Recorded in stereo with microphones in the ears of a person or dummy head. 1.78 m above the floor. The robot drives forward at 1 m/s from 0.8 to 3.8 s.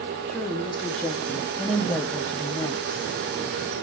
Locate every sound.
0.3 s a woman speaking: 5° left (ahead or behind), 3.5 m; by 3.1 s 20° left (ahead or behind), 1.2 m